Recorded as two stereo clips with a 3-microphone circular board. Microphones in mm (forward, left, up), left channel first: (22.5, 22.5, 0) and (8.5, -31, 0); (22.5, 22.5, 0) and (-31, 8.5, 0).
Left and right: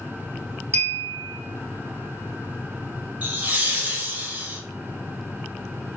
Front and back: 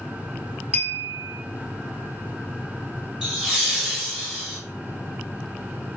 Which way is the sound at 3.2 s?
100° right.